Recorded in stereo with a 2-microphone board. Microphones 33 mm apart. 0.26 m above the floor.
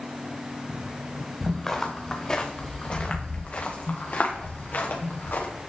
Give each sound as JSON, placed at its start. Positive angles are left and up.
{"t": 1.4, "sound": "footsteps", "side_deg": 5, "distance_m": 2.5}